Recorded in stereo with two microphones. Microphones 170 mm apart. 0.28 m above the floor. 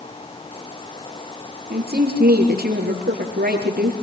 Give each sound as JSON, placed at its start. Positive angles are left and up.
{"t": 1.7, "sound": "a woman speaking", "side_deg": -65, "distance_m": 5.5}